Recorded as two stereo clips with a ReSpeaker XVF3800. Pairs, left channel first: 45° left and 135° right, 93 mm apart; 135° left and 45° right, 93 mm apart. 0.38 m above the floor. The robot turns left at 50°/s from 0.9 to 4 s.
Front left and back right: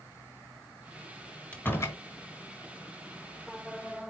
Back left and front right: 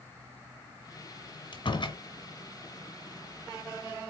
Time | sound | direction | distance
1.5 | a door slam | 120° left | 1.9 m